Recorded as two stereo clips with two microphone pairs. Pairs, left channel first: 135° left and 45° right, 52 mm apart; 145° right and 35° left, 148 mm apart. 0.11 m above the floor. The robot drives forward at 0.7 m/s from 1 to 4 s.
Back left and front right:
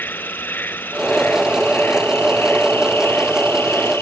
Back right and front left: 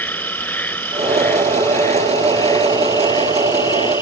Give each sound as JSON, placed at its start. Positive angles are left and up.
{"t": 0.0, "sound": "an insect", "azimuth_deg": 140}